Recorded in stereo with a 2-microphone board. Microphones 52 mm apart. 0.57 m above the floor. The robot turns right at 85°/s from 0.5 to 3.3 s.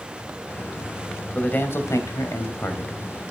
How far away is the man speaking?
About 3 m.